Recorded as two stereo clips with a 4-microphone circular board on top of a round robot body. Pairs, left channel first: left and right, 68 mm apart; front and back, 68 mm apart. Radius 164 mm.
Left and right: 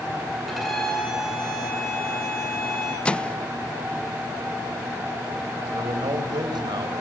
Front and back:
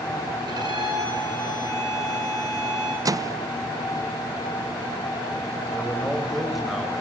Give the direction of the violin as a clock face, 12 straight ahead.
6 o'clock.